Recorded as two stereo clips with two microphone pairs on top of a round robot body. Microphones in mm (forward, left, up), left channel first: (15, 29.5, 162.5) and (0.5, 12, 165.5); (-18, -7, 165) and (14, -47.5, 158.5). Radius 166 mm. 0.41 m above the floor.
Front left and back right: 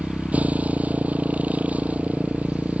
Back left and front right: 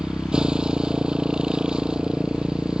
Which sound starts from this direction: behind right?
A motorcycle, at 0.0 s.